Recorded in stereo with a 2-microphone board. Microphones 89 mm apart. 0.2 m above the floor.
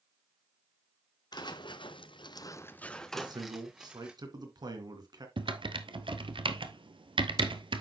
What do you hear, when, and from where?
1.3 s footsteps: 55° left (ahead or behind), 1.0 m; by 4.1 s 10° right (ahead or behind), 1.7 m
3.1 s a man speaking: 55° right (ahead or behind), 2.5 m
5.4 s typing on a keyboard: 80° right, 1.0 m